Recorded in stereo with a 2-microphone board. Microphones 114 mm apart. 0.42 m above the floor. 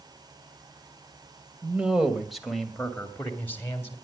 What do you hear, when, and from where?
1.6 s a man speaking: 15° right (ahead or behind), 2 m; by 4.0 s 20° left (ahead or behind), 2.5 m